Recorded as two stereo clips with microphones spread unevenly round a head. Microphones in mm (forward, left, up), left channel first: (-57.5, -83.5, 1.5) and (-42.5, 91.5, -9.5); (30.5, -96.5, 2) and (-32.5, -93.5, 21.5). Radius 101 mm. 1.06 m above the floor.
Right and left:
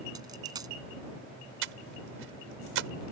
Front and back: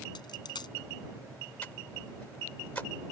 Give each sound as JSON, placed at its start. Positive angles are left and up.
{"t": 0.1, "sound": "a dropped coin", "azimuth_deg": 15}
{"t": 1.6, "sound": "breathing", "azimuth_deg": 80}